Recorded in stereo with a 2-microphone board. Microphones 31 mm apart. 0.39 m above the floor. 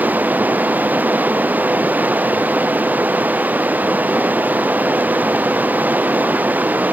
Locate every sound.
0.0 s running water: 70° right (ahead or behind)